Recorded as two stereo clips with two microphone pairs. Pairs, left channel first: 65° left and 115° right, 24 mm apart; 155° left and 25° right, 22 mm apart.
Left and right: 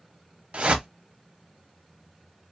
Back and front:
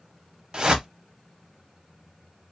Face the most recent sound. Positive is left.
turn(degrees=-80)